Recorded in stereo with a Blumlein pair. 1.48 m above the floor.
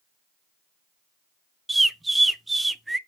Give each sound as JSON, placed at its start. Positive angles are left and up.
{"t": 1.7, "sound": "a bird", "azimuth_deg": -5, "distance_m": 0.5}